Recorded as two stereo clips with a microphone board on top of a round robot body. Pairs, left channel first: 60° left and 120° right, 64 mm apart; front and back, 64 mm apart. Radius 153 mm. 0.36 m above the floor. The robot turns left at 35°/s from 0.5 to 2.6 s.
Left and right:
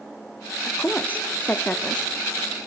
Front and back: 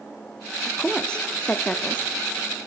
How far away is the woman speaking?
About 0.8 m.